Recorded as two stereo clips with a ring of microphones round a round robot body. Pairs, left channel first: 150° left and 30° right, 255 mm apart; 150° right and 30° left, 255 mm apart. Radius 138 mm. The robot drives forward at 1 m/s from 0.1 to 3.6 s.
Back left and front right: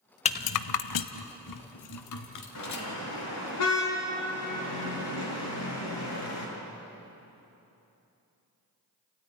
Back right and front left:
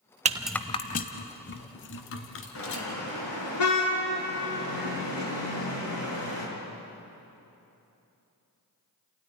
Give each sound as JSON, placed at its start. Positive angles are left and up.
{"t": 0.2, "sound": "a rattle", "azimuth_deg": 90, "distance_m": 0.5}
{"t": 2.5, "sound": "a car horn", "azimuth_deg": 180, "distance_m": 5.5}